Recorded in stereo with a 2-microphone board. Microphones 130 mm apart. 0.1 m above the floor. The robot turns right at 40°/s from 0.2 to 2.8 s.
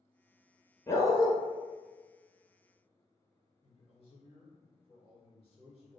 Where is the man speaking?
50° left (ahead or behind), 1.8 m.